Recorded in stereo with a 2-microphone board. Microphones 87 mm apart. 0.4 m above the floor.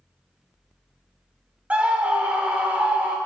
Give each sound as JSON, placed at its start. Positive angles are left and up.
{"t": 1.7, "sound": "a scream", "side_deg": -15, "distance_m": 0.8}